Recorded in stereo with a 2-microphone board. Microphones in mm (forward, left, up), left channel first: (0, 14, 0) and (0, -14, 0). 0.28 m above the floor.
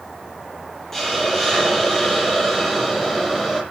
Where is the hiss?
10° left (ahead or behind), 9.5 m.